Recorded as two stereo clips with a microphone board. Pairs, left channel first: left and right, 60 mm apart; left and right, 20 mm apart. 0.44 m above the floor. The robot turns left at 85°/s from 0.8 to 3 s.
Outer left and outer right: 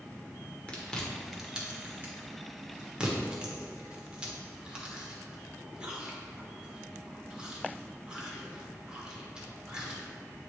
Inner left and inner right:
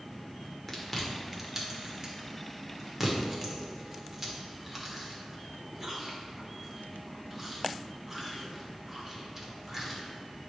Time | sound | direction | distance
0.7 | chewing | 20° left (ahead or behind) | 1.1 m